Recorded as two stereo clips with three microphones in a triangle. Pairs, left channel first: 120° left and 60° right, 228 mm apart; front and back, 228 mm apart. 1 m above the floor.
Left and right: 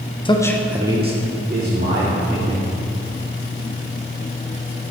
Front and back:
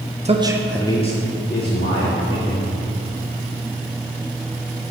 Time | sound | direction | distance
0.2 | a man speaking | 165° left | 0.6 m